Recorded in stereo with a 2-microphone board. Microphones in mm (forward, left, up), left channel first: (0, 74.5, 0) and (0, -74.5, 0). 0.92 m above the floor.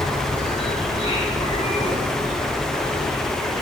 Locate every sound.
0.0 s an insect: 35° left (ahead or behind), 4 m